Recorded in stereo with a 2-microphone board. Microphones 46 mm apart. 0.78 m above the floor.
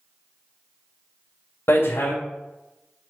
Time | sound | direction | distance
1.7 | hammering | 65° left (ahead or behind) | 2.5 m